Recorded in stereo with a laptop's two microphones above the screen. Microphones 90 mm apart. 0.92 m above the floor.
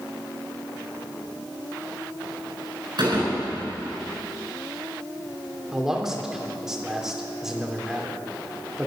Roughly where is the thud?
Right.